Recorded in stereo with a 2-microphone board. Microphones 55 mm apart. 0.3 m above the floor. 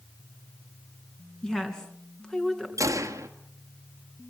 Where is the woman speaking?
10° left (ahead or behind), 3.5 m.